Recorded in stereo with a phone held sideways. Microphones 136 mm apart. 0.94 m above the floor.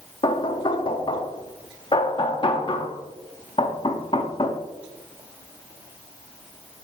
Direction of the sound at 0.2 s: 40° left (ahead or behind).